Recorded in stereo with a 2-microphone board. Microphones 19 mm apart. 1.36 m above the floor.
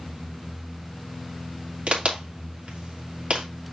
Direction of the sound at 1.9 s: 90° right.